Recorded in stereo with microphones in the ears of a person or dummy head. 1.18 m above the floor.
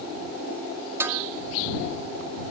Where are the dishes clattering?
10° right (ahead or behind).